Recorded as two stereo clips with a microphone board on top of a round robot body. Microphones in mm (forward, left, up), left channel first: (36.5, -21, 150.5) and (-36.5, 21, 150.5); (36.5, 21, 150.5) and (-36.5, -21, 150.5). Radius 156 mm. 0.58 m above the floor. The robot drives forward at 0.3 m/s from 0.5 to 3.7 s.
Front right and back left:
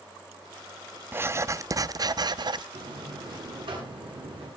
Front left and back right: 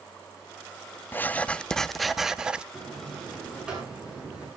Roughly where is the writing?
Left.